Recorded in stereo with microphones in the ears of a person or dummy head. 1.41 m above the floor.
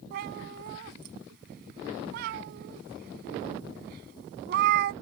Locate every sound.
0.1 s a cat meowing: 60° right (ahead or behind)